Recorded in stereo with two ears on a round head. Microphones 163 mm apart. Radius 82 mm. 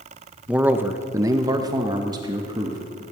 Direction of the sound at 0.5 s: 5° right (ahead or behind).